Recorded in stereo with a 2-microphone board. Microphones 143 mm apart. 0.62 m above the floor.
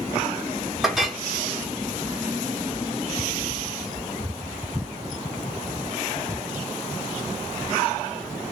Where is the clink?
Centre (ahead or behind), 0.9 m.